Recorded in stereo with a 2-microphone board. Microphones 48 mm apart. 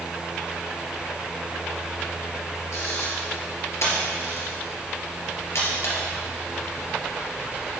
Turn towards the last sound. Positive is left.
turn(degrees=65)  # may be behind; listen again after turning